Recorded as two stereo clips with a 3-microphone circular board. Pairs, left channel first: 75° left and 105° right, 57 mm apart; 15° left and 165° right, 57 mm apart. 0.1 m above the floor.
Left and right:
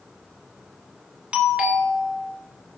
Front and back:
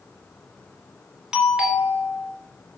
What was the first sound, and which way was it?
A doorbell, 115° right.